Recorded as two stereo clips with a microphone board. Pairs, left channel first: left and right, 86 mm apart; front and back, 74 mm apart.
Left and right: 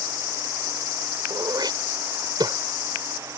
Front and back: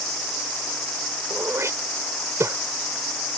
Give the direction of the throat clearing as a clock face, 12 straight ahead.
4 o'clock.